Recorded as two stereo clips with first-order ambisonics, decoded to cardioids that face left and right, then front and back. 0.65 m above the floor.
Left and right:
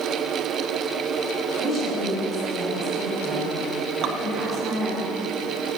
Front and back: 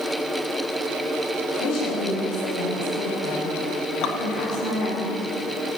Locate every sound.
1.6 s a woman speaking: 10° right, 4.5 m
4.0 s dripping: 45° right, 0.9 m